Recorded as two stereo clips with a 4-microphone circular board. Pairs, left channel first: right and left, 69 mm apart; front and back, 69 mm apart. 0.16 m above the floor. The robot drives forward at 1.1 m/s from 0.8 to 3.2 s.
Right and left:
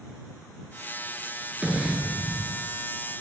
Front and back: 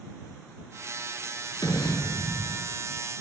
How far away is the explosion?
About 5 m.